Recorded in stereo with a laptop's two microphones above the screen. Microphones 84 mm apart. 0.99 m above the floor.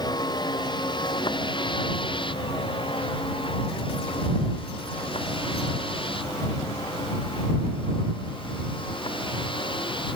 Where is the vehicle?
55° left (ahead or behind); by 10.2 s 75° left (ahead or behind).